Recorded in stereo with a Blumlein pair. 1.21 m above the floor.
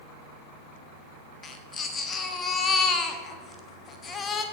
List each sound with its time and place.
1.4 s a baby crying: 20° left, 1.4 m